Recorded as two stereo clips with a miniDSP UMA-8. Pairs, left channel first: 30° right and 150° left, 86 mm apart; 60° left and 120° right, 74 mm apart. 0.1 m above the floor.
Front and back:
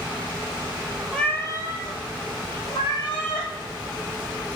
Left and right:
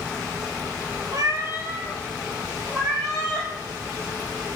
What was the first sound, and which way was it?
A cat meowing, 115° right.